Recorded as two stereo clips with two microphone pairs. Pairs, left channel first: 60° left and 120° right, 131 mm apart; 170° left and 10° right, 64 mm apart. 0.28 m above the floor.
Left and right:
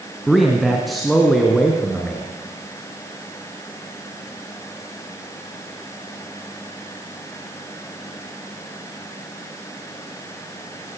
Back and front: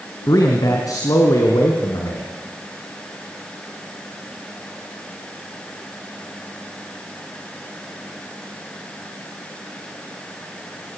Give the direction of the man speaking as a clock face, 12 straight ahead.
7 o'clock.